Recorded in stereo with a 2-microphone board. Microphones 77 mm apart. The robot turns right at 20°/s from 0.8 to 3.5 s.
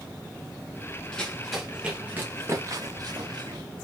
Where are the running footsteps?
10° left (ahead or behind), 2.5 m; by 3.6 s 75° right (ahead or behind), 2 m.